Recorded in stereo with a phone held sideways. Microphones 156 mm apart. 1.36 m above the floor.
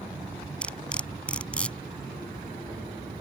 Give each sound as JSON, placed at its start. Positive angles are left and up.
{"t": 0.6, "sound": "cutlery clinking", "side_deg": 5}